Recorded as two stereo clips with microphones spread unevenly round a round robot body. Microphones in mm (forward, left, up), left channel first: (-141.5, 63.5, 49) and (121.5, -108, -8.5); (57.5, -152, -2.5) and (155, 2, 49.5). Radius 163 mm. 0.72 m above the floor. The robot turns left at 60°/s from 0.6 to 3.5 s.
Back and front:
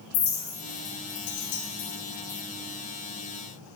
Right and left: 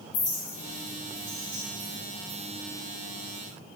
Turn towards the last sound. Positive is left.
turn(degrees=20)